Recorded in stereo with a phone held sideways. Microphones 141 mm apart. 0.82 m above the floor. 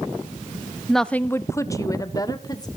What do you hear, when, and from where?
0.9 s a woman speaking: centre (ahead or behind), 0.6 m; by 2.7 s 30° left (ahead or behind), 2.5 m